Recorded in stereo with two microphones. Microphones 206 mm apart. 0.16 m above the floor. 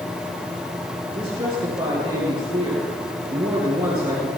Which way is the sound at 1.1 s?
25° right (ahead or behind).